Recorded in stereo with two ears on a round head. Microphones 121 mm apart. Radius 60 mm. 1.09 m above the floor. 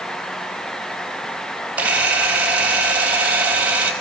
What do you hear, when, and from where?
1.8 s a camera shutter: 10° right (ahead or behind), 5 m